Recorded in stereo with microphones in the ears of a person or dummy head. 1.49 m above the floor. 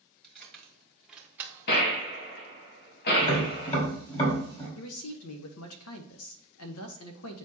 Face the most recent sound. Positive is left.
turn(degrees=75)  # may be behind; listen again after turning